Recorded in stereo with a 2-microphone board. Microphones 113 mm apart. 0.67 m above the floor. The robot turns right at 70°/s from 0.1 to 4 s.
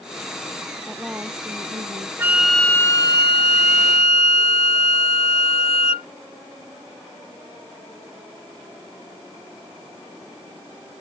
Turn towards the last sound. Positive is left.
turn(degrees=105)